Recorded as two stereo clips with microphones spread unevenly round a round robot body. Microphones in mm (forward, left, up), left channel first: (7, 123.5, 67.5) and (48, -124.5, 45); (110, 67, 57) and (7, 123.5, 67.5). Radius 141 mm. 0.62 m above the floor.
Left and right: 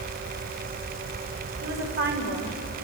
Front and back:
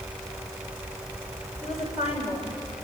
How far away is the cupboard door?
No cupboard door in this recording.